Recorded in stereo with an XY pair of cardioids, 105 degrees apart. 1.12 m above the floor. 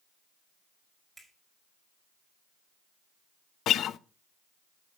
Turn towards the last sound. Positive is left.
turn(degrees=70)